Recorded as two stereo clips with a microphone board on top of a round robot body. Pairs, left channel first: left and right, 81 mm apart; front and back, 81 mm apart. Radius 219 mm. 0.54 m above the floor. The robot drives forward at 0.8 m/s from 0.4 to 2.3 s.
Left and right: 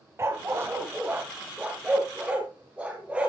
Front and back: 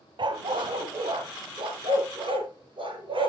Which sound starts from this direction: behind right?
A dog barking, at 0.2 s.